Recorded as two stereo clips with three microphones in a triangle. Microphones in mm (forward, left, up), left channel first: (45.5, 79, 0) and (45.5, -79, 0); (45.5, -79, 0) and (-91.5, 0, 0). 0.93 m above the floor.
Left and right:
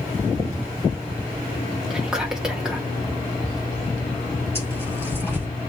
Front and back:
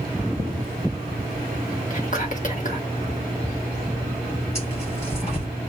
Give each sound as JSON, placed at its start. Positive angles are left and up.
{"t": 1.9, "sound": "whispering", "azimuth_deg": -5, "distance_m": 1.5}
{"t": 4.5, "sound": "tearing paper", "azimuth_deg": 15, "distance_m": 4.5}